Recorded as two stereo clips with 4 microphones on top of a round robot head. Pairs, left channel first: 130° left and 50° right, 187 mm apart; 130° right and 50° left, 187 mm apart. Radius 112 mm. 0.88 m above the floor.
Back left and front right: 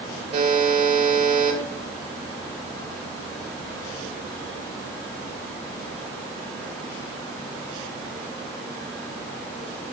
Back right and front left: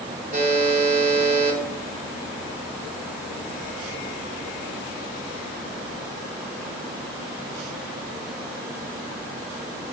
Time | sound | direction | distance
0.3 | a buzzer | 5° left | 3.5 m